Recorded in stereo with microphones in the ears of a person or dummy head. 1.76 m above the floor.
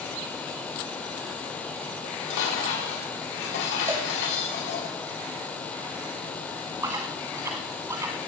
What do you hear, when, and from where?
2.0 s dishes clattering: 75° left (ahead or behind), 5 m
3.9 s a cowbell: 15° right (ahead or behind), 2.5 m
6.8 s chewing: 20° right (ahead or behind), 1.3 m